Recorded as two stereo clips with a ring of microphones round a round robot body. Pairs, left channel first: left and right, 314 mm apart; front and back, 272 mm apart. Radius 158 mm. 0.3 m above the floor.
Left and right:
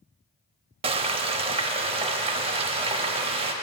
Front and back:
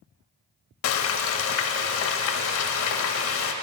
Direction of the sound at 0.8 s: 20° right.